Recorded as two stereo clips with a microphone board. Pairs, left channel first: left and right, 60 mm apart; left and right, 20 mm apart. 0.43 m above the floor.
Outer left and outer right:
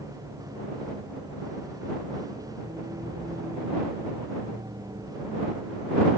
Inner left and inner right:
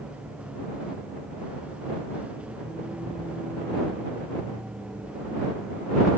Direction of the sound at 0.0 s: 85° right.